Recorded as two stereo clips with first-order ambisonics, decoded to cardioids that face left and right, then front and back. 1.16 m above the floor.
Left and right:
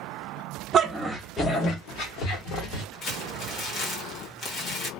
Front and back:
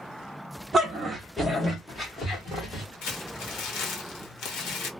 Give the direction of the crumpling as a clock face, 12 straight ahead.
11 o'clock.